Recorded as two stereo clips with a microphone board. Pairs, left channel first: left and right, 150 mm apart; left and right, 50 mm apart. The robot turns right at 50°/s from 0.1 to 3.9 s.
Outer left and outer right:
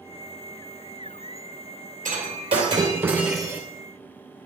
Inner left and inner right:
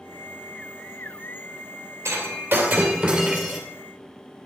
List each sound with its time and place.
2.0 s breaking glass: 65° right, 2.5 m; by 3.6 s 10° left, 2.5 m